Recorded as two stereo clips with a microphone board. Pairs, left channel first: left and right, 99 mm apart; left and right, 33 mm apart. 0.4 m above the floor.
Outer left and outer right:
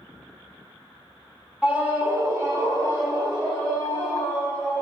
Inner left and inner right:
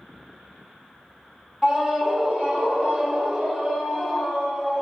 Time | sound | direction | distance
1.6 | a scream | 15° right (ahead or behind) | 0.8 m